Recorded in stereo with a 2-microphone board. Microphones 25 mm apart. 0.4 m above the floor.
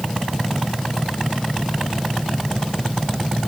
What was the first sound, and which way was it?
Only background noise.